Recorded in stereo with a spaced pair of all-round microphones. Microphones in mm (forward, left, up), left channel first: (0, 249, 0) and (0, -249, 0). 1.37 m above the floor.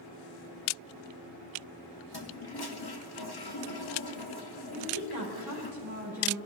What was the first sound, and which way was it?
A toilet flushing, 50° left (ahead or behind).